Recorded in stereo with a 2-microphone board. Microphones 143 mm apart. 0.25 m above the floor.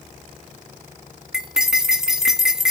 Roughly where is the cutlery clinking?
Centre.